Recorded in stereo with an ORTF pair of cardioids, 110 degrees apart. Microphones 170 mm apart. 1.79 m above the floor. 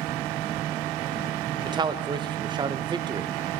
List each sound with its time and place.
1.6 s a man speaking: 25° right, 0.8 m